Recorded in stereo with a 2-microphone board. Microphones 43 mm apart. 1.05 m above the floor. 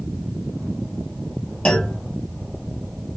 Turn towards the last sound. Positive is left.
turn(degrees=25)  # may be behind; listen again after turning